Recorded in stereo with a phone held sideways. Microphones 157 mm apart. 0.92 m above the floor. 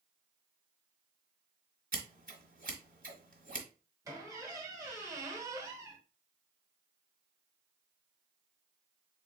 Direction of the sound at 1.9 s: 60° right (ahead or behind).